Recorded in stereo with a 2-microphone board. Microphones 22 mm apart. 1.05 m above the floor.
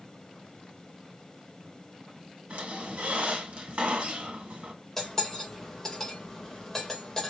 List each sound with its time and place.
2.5 s a squeak: 60° right (ahead or behind), 1.7 m
5.0 s cutlery clinking: 15° left (ahead or behind), 2 m